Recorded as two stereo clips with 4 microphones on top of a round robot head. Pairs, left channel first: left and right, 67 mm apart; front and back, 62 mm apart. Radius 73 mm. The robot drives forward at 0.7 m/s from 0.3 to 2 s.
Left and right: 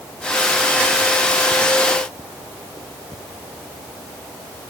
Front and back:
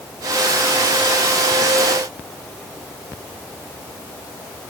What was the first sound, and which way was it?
Only background noise.